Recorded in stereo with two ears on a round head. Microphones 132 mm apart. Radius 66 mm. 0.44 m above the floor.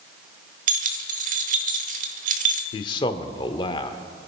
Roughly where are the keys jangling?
Right.